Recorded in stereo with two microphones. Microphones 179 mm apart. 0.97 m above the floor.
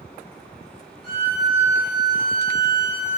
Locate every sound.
1.0 s a violin: 35° left (ahead or behind), 1.1 m